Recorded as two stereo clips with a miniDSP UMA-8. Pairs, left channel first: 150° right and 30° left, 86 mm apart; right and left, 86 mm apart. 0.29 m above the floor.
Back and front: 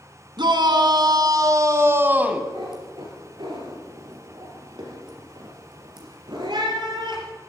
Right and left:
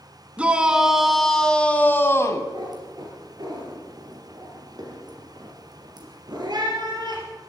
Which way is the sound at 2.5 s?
55° left.